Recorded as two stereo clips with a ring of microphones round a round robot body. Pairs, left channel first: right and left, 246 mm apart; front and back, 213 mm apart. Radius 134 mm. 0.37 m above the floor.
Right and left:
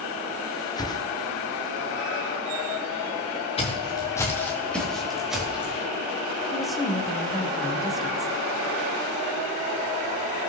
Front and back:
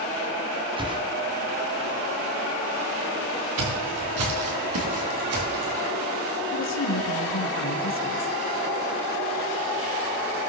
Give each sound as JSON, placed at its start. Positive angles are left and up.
{"t": 0.8, "sound": "a whoosh", "azimuth_deg": -145, "distance_m": 1.2}
{"t": 3.6, "sound": "footsteps", "azimuth_deg": -160, "distance_m": 3.5}
{"t": 6.5, "sound": "a woman speaking", "azimuth_deg": 0, "distance_m": 2.5}